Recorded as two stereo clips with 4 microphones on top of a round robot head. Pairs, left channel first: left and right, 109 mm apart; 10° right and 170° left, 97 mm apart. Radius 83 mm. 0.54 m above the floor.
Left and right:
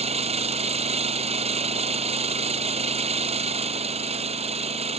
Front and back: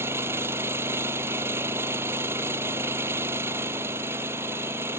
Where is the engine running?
115° right.